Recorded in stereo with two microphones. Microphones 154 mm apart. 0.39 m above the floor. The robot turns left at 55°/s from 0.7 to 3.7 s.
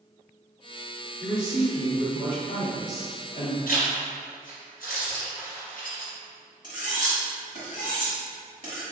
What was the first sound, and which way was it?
A man speaking, 170° right.